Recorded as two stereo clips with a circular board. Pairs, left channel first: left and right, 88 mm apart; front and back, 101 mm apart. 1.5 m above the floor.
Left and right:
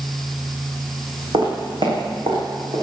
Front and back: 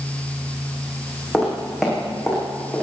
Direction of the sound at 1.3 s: 95° right.